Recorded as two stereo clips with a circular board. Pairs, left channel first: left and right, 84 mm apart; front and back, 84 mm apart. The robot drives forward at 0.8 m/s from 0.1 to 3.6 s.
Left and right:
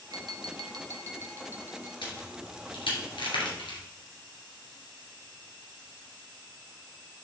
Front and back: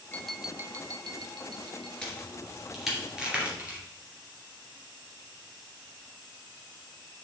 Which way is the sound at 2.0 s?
80° left.